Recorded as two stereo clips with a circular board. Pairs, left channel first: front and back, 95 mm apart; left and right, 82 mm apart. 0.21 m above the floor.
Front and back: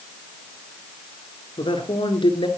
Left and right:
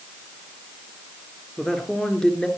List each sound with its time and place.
1.6 s a man speaking: 10° left, 3.5 m